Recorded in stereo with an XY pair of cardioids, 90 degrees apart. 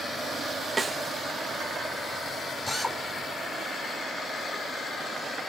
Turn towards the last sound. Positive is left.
turn(degrees=15)